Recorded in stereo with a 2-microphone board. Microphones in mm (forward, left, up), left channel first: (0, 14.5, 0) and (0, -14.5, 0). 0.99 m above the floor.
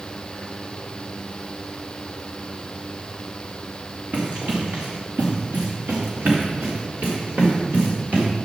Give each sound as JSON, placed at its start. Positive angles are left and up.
{"t": 4.1, "sound": "running footsteps", "side_deg": -50, "distance_m": 3.0}